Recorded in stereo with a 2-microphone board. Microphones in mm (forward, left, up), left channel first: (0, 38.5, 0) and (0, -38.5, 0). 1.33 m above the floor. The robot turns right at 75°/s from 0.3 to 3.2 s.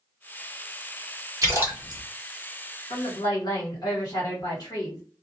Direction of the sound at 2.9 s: 75° left (ahead or behind).